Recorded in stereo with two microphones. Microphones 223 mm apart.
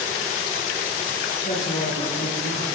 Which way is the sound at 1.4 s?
45° left (ahead or behind).